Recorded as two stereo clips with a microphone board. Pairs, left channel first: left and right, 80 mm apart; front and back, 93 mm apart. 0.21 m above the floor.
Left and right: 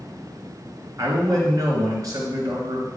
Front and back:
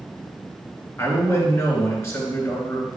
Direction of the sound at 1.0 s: 55° right.